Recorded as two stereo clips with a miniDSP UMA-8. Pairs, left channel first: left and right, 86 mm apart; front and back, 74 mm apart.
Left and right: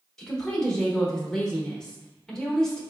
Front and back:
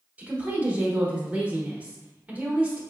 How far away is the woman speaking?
About 0.8 m.